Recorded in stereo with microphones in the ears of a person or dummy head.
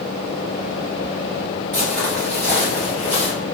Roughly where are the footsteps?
Centre.